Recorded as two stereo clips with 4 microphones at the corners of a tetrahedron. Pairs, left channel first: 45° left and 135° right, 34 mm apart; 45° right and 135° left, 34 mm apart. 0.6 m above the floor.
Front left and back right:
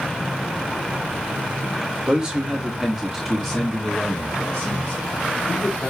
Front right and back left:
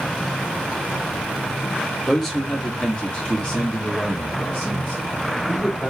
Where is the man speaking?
135° right, 1.0 m; by 5.9 s straight ahead, 1.9 m.